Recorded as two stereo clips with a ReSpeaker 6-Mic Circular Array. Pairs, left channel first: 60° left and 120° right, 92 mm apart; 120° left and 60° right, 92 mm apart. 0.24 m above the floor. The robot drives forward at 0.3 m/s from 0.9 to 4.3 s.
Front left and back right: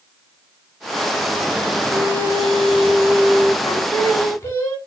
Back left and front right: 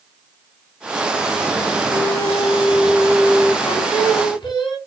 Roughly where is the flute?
Behind right.